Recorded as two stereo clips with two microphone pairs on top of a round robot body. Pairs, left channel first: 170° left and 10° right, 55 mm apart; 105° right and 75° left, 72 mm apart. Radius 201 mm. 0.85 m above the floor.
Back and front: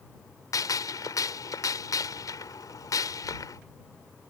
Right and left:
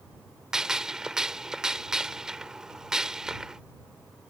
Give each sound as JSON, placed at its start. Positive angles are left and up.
{"t": 0.5, "sound": "a gunshot", "azimuth_deg": 160}